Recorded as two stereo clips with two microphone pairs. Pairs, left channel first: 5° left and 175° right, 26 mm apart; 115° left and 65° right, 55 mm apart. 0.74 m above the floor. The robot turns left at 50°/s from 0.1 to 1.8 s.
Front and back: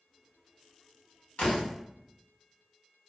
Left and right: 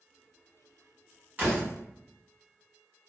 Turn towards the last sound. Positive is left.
turn(degrees=-30)